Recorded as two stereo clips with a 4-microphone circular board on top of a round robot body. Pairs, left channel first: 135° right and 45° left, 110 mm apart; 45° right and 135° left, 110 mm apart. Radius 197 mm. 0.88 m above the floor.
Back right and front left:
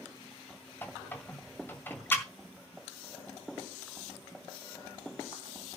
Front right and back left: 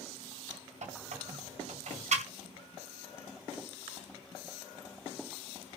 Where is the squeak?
150° left, 1.8 m.